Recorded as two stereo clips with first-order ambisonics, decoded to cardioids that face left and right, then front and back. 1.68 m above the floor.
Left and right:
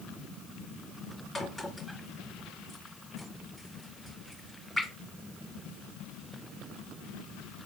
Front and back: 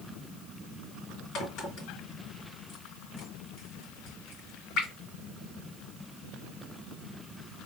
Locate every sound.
1.4 s a crack: 20° left, 2.5 m